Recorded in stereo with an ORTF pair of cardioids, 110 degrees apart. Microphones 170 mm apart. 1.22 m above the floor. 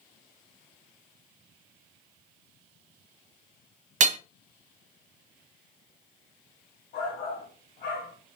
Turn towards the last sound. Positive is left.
turn(degrees=65)